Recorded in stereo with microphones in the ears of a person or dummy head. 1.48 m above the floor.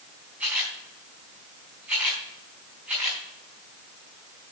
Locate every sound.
0.4 s a camera shutter: 10° right (ahead or behind), 4.5 m